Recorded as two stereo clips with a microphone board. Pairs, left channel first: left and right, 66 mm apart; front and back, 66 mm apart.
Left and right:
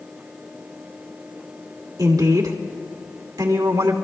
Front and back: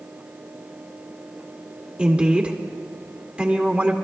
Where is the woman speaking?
110° right, 2 m.